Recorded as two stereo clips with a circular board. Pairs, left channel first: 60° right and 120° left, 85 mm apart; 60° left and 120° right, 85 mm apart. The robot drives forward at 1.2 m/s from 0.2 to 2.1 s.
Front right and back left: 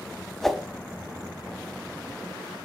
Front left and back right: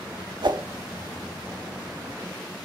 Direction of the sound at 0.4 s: 145° right.